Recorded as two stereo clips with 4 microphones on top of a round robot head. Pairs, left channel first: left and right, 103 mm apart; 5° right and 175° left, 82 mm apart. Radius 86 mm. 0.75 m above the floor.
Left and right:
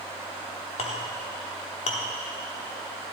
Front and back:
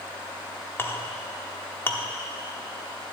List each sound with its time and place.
0.8 s a clink: 60° left, 0.9 m